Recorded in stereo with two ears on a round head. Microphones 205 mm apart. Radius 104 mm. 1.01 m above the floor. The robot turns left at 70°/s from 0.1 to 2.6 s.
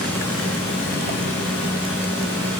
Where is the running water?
175° left, 6.5 m; by 2.6 s straight ahead, 6.5 m.